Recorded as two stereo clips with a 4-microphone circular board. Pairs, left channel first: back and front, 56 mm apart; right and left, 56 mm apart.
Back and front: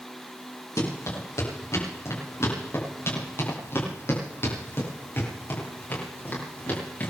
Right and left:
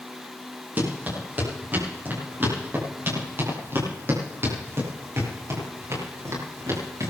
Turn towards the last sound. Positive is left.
turn(degrees=120)